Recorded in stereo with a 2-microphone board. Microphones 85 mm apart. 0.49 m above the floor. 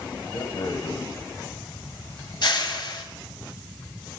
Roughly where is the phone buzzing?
No phone buzzing in this recording.